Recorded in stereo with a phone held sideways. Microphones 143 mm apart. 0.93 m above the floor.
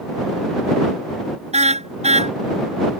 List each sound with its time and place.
1.5 s a car horn: 50° right (ahead or behind)